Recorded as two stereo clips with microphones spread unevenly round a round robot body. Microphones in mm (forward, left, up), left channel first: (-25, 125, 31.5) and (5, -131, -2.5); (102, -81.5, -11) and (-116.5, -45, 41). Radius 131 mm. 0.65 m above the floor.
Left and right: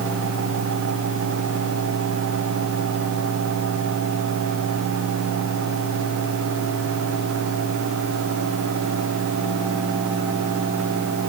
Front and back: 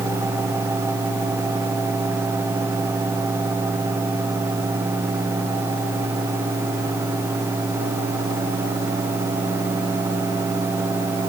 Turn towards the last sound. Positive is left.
No sound to turn to.